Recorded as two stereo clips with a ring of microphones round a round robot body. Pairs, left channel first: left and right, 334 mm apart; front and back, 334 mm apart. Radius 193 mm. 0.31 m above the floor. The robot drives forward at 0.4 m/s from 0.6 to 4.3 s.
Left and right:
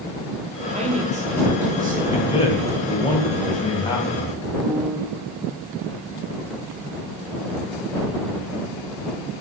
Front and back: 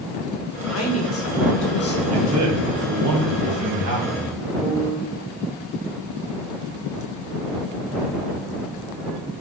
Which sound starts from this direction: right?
A piano, at 4.6 s.